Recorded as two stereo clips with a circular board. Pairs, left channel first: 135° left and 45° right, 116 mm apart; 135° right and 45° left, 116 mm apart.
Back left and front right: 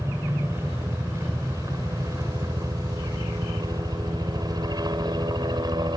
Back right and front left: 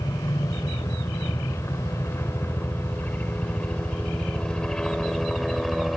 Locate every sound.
0.0 s a helicopter: 95° right; by 6.0 s 45° right